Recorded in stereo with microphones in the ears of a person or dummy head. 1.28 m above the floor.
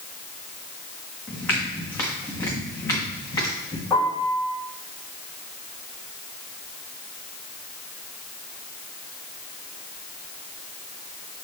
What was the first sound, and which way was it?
Footsteps, 15° left (ahead or behind).